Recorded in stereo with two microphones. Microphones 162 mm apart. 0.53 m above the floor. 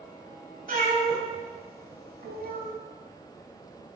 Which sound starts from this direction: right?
A cat meowing, at 0.7 s.